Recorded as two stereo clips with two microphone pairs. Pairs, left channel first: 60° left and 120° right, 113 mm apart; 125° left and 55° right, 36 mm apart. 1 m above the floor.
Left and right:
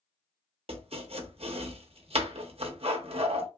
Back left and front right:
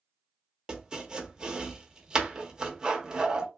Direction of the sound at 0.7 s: 120° right.